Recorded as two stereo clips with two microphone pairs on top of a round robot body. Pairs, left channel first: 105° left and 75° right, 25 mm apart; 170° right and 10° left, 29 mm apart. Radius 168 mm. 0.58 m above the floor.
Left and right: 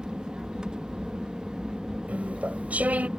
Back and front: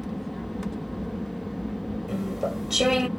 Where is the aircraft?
100° right.